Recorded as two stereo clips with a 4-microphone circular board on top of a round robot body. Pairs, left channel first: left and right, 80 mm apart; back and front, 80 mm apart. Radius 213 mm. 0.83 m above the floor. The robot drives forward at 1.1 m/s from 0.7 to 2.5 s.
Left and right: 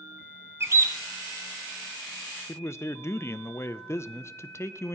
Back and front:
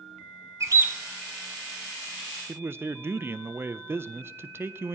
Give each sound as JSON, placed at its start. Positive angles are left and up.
{"t": 0.6, "sound": "a bird", "azimuth_deg": -40, "distance_m": 0.9}
{"t": 2.5, "sound": "a man speaking", "azimuth_deg": 45, "distance_m": 0.7}